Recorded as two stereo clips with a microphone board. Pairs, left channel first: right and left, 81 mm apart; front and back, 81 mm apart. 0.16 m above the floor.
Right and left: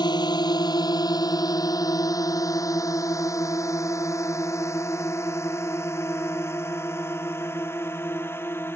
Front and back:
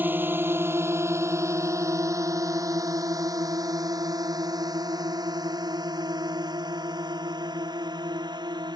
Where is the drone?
115° right; by 8.8 s 150° right.